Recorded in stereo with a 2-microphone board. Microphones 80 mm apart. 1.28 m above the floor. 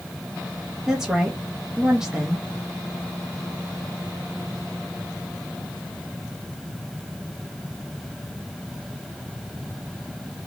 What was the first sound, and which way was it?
A woman speaking, 5° right (ahead or behind).